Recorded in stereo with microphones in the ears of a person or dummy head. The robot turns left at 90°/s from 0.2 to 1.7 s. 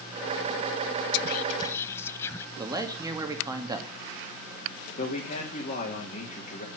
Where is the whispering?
60° left (ahead or behind), 0.9 m; by 2.5 s 15° left (ahead or behind), 0.9 m.